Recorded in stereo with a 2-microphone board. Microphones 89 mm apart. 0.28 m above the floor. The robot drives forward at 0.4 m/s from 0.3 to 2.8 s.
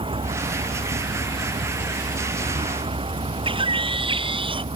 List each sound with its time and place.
0.0 s a vehicle: 80° right; by 4.8 s 85° right
3.5 s a bird: 75° right (ahead or behind)